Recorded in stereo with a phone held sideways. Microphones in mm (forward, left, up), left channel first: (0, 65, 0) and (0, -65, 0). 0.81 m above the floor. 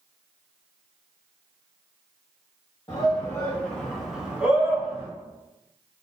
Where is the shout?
30° left (ahead or behind), 1.0 m; by 5.1 s 20° right (ahead or behind), 1.4 m.